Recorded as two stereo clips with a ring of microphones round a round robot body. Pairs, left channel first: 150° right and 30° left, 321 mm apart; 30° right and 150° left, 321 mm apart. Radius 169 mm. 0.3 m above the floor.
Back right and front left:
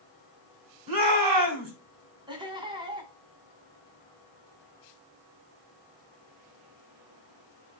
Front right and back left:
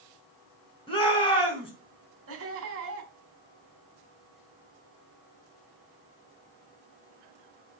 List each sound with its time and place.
0.9 s a shout: 45° left, 3.5 m
2.3 s laughter: 105° left, 2.5 m